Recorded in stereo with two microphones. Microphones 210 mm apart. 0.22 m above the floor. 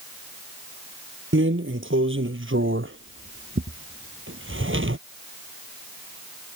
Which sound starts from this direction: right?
A drawer, at 1.3 s.